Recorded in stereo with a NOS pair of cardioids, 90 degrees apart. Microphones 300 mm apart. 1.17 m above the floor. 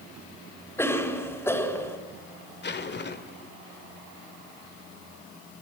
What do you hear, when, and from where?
0.8 s a cough: 10° left, 4.5 m
2.6 s a zipper: 35° left, 1.9 m